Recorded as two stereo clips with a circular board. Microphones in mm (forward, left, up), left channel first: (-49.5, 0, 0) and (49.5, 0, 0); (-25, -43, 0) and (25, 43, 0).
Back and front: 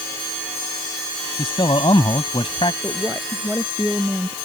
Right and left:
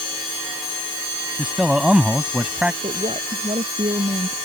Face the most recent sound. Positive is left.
turn(degrees=75)